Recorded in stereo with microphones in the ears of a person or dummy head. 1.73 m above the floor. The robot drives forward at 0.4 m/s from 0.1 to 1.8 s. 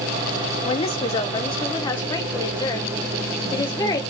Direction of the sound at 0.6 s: 35° left (ahead or behind).